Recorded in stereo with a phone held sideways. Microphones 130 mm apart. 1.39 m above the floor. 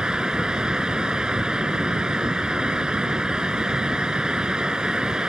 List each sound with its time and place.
0.0 s a fan: 5° right (ahead or behind)